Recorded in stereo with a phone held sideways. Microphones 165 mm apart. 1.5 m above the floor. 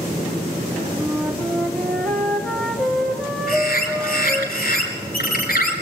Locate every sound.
1.0 s a flute: 5° left (ahead or behind), 2.5 m
3.5 s a bird: 65° left (ahead or behind), 5 m